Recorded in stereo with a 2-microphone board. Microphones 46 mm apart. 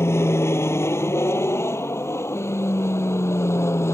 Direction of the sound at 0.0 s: 65° left (ahead or behind).